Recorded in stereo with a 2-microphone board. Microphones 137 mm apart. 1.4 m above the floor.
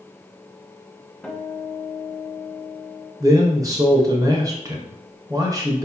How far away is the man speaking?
About 0.8 m.